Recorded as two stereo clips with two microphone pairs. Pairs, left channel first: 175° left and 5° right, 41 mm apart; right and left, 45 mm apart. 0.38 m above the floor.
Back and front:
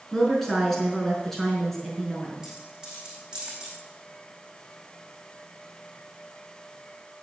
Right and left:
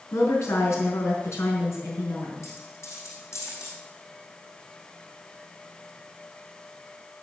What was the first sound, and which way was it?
A woman speaking, 100° right.